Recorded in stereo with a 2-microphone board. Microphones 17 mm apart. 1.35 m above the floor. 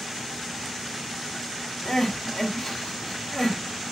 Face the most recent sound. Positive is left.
turn(degrees=45)  # may be behind; listen again after turning